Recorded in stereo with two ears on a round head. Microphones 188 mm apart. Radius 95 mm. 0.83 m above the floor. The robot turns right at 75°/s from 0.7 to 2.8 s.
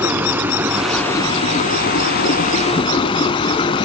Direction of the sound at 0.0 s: 15° right.